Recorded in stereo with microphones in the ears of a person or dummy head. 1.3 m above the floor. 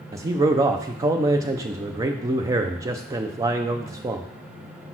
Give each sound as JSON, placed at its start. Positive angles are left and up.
{"t": 0.1, "sound": "a man speaking", "side_deg": -15, "distance_m": 0.5}